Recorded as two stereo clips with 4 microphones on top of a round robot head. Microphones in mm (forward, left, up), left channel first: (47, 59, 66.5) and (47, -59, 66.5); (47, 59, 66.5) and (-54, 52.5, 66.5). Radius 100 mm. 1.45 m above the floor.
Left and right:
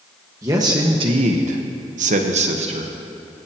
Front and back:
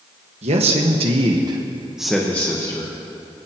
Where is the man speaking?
160° right, 1.6 m; by 3.0 s 55° right, 1.6 m.